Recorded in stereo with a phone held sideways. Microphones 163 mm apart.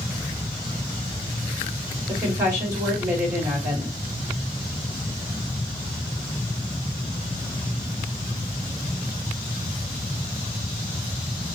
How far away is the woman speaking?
About 2.5 m.